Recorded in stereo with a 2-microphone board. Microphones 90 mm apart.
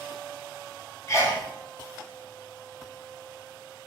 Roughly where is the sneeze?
Left.